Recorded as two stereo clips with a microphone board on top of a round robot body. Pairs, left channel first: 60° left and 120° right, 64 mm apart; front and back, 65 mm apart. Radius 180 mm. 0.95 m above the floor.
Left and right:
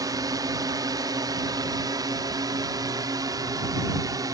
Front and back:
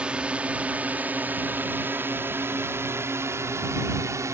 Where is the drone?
105° right; by 4.3 s 140° right.